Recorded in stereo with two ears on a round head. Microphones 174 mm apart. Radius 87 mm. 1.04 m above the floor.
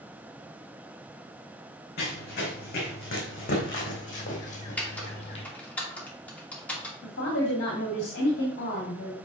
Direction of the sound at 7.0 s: 60° left (ahead or behind).